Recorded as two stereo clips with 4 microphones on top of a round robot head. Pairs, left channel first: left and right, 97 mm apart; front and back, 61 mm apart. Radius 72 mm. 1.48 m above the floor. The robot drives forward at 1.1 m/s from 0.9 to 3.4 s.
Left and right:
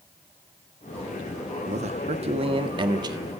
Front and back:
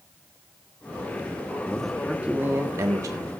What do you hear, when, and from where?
1.7 s a man speaking: 80° right, 1.3 m; by 3.2 s 140° right, 2.0 m